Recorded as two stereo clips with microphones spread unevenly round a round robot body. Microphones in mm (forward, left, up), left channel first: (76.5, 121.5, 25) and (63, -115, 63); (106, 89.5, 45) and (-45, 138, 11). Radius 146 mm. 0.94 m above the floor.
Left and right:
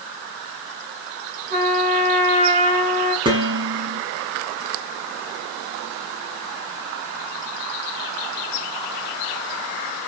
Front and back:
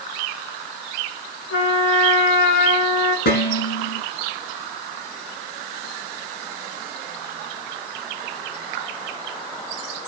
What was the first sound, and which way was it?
A trumpet, 35° right.